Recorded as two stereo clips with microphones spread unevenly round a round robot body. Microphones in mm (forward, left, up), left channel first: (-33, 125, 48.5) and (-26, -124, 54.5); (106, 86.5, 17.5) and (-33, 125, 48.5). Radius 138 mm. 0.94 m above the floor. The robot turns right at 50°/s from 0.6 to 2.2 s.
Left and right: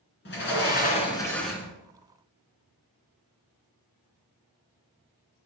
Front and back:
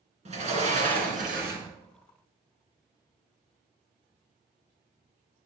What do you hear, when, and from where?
0.2 s a sliding door: 140° left, 2.5 m; by 1.7 s 165° right, 2.5 m